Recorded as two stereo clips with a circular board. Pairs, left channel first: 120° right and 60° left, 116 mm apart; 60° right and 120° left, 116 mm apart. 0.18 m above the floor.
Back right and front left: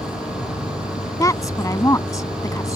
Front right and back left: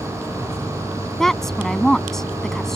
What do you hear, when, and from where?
0.0 s an insect: 130° right
1.2 s a woman speaking: 145° right